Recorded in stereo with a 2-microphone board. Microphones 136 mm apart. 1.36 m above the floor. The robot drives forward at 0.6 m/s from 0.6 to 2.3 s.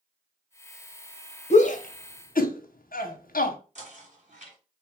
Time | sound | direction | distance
1.5 | a shout | 55° left (ahead or behind) | 0.8 m
3.8 | knocking | 55° right (ahead or behind) | 1.4 m